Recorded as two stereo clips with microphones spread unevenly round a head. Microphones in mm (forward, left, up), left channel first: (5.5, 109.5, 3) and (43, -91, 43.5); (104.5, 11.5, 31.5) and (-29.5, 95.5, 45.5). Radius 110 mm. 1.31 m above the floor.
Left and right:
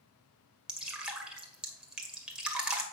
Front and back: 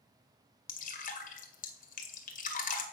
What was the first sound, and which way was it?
Dripping, straight ahead.